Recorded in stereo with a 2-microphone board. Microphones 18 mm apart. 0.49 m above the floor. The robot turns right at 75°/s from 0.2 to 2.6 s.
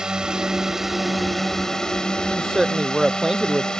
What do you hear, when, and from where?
0.0 s a drone: 80° right; by 3.8 s 100° left
2.3 s a woman speaking: 5° left (ahead or behind); by 3.7 s 15° right (ahead or behind)